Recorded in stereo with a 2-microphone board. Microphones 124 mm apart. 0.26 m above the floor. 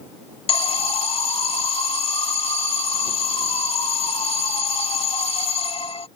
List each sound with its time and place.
0.5 s an alarm: 45° left (ahead or behind)